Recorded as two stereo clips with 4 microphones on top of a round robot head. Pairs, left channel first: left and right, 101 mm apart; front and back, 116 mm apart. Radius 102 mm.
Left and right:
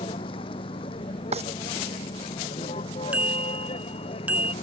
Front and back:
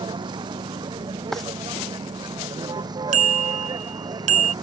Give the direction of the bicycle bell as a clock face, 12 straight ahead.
6 o'clock.